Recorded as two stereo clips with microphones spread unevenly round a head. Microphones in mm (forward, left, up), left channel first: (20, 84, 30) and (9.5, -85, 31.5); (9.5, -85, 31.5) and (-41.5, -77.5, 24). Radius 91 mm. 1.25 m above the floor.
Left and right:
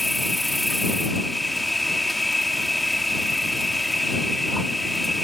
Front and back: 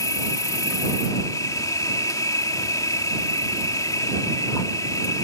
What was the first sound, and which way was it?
An insect, 5° right.